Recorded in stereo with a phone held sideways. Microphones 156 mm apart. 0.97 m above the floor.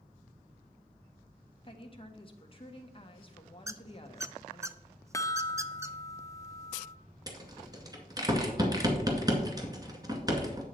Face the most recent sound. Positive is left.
turn(degrees=-25)  # may be behind; listen again after turning